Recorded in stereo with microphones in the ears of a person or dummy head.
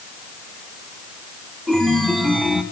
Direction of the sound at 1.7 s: Centre (ahead or behind).